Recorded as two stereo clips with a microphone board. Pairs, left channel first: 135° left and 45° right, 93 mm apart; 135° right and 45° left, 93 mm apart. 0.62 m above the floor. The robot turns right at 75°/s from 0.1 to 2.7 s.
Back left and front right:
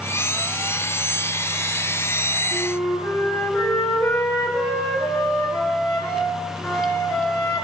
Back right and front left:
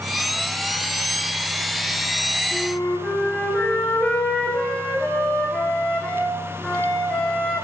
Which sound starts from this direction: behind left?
A flute, at 2.5 s.